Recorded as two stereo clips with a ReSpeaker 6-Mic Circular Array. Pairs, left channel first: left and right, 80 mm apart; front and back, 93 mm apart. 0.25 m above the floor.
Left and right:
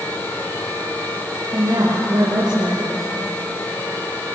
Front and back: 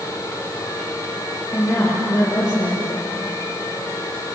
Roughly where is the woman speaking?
Ahead right.